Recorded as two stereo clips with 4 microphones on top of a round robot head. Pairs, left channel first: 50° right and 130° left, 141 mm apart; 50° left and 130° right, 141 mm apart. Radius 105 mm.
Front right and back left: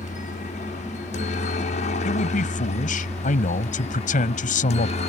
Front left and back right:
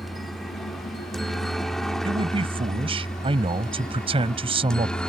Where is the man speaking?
80° right.